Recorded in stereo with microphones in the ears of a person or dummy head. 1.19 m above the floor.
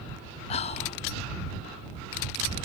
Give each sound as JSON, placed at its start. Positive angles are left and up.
{"t": 0.5, "sound": "whispering", "side_deg": 30}